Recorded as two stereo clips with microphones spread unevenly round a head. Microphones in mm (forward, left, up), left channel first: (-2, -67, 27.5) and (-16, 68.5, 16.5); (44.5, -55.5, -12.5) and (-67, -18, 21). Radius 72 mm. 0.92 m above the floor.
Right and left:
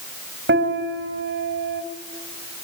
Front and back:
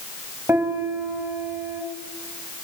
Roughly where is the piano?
Left.